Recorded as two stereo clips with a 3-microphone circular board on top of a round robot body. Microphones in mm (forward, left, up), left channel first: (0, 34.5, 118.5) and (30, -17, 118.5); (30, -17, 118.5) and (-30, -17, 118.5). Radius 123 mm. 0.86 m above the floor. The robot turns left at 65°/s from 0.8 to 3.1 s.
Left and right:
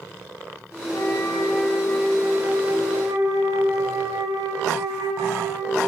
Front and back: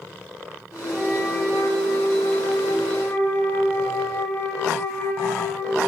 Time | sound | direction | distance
0.9 | a flute | 90° left | 2.5 m